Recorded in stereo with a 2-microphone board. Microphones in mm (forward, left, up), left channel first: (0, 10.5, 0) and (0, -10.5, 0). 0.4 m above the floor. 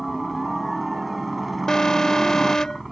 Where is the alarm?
30° left (ahead or behind).